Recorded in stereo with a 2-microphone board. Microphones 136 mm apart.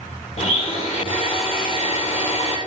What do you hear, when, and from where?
0.4 s a blender: 45° left (ahead or behind), 3 m